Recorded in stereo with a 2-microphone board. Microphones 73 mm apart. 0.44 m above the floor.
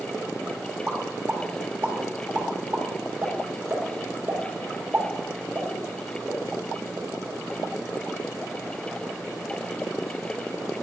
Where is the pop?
30° right (ahead or behind), 1.2 m.